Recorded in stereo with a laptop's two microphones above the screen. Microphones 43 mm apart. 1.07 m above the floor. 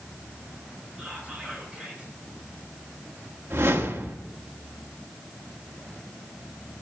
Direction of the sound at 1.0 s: 20° right (ahead or behind).